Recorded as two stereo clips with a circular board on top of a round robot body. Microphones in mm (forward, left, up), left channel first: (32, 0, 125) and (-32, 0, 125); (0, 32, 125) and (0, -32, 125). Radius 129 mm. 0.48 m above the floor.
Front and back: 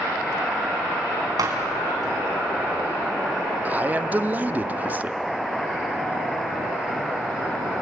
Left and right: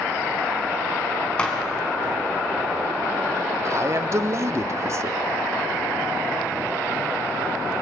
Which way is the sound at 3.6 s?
120° right.